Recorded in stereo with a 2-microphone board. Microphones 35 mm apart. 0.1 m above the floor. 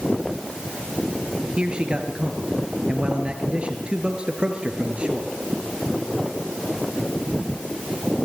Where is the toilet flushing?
I don't hear a toilet flushing.